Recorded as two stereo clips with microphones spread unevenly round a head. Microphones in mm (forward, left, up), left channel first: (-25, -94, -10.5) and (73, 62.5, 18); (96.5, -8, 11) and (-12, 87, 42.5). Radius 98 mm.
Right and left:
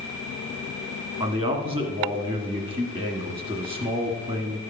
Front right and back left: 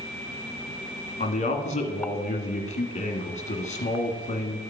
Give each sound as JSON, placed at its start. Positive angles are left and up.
{"t": 1.2, "sound": "a man speaking", "azimuth_deg": -5, "distance_m": 1.6}